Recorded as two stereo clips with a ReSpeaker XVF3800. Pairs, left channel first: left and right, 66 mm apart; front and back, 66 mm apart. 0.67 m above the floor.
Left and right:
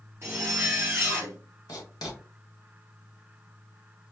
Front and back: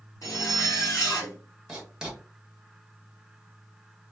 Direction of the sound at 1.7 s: 105° left.